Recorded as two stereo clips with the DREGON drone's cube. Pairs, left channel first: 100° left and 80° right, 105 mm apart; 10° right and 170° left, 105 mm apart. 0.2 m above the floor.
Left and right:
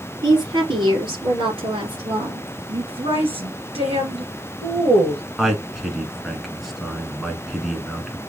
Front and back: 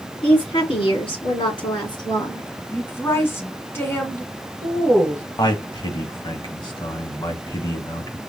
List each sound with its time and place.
0.2 s a woman speaking: 35° right, 3.5 m; by 2.5 s 60° right, 2.5 m
2.7 s a woman speaking: 75° right, 2 m
5.4 s a man speaking: 10° left, 1.4 m